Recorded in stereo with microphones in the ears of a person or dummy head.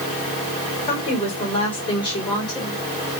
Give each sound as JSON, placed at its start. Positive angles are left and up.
{"t": 0.9, "sound": "a woman speaking", "side_deg": 35, "distance_m": 4.0}